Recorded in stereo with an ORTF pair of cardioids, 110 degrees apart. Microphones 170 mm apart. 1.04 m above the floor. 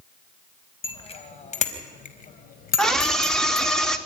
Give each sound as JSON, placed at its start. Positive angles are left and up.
{"t": 0.8, "sound": "a bicycle bell", "azimuth_deg": 35, "distance_m": 4.5}
{"t": 2.8, "sound": "a scream", "azimuth_deg": 5, "distance_m": 3.0}